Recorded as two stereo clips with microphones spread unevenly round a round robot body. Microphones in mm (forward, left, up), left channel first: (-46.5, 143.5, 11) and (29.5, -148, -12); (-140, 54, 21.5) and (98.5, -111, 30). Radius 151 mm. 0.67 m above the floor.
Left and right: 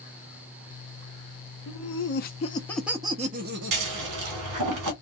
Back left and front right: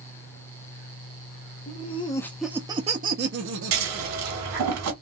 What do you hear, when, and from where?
1.7 s laughter: 90° left, 0.9 m; by 4.7 s 60° right, 1.4 m
3.7 s scissors: 55° right, 1.7 m